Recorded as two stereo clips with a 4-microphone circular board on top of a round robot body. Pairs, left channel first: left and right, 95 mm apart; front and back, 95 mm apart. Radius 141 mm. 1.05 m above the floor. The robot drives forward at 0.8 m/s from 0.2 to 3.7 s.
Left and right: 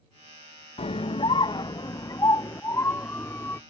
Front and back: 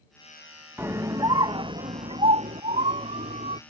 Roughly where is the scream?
Left.